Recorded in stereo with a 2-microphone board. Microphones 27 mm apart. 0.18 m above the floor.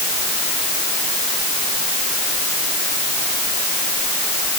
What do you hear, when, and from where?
Only background noise.